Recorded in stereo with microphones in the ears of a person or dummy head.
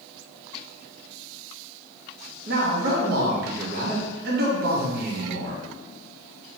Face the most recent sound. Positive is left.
turn(degrees=-50)  # may be behind; listen again after turning